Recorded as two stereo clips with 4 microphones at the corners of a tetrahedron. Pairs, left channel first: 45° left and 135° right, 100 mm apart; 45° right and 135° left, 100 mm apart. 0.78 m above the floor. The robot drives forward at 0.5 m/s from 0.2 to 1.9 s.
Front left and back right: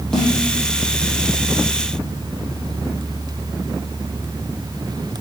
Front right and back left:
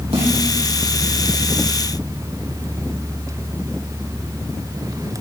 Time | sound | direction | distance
0.1 | a snare drum | 130° left | 5 m